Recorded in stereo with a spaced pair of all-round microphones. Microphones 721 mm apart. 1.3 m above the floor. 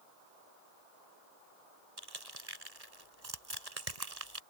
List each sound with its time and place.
2.0 s crushing: 60° right (ahead or behind)